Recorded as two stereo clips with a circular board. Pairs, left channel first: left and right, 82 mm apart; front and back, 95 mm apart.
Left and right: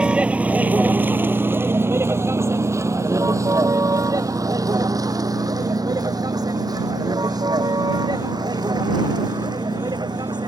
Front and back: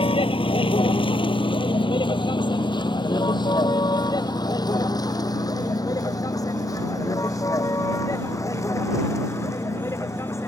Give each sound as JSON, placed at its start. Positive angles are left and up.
{"t": 0.0, "sound": "a vehicle", "azimuth_deg": -10}